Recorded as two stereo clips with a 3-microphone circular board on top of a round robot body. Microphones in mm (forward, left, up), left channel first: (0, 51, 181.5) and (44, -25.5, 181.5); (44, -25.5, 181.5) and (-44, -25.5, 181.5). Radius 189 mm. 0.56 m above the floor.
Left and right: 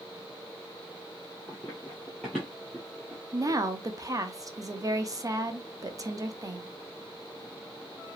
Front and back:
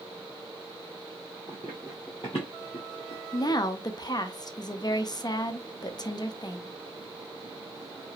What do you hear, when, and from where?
1.5 s running footsteps: 155° right, 0.6 m; by 3.6 s 30° left, 1.0 m
3.3 s a woman speaking: 20° right, 0.8 m